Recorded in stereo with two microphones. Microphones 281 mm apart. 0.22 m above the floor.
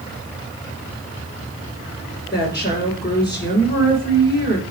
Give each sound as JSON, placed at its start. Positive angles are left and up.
{"t": 2.3, "sound": "a woman speaking", "side_deg": 35, "distance_m": 3.5}